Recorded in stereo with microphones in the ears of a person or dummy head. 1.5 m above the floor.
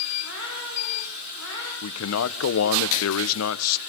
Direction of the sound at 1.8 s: 80° left.